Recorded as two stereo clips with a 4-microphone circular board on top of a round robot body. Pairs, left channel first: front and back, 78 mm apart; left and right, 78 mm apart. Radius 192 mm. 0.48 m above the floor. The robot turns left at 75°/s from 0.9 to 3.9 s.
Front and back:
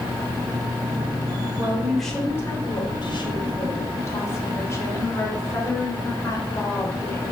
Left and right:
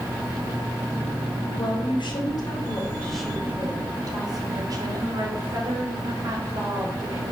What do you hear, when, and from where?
1.6 s a woman speaking: 120° left, 3 m; by 7.3 s 55° right, 3 m